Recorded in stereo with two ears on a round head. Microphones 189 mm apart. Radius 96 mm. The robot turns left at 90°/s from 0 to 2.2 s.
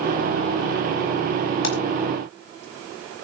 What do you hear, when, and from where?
1.6 s a splash: 65° left (ahead or behind), 5 m; by 1.8 s 50° left (ahead or behind), 5 m